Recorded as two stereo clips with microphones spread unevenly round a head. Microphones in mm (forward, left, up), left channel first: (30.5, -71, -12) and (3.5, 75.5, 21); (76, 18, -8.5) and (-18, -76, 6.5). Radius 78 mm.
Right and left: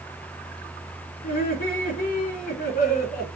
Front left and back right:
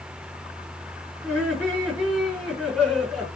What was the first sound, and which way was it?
Laughter, 50° right.